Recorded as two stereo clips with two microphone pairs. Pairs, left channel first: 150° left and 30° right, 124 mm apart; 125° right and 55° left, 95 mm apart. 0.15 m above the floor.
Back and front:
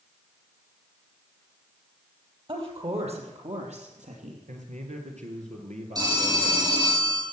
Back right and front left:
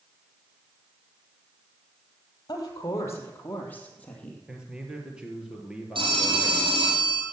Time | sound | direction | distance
2.5 | a woman speaking | 75° right | 4 m
4.5 | a man speaking | 25° right | 3.5 m
6.0 | a phone ringing | 30° left | 4.5 m